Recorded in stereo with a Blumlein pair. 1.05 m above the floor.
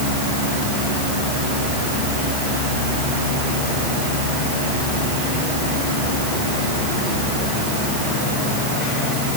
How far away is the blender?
I don't hear a blender.